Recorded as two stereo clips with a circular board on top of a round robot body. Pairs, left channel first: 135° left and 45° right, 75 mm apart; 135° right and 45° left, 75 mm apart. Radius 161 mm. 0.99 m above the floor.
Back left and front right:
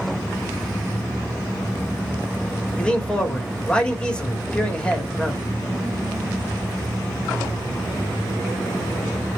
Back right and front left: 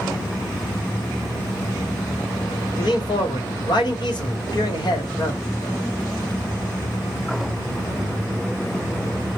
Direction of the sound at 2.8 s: 150° right.